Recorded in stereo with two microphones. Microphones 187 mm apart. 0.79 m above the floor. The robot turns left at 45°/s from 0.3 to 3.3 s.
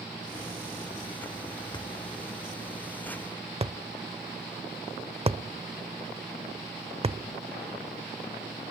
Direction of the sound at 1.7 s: 25° left (ahead or behind).